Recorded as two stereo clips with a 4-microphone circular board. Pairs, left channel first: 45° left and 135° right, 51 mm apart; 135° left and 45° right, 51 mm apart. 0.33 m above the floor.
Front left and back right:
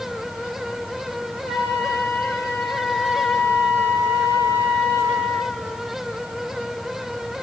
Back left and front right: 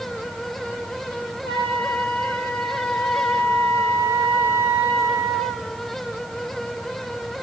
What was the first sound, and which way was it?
A flute, 95° left.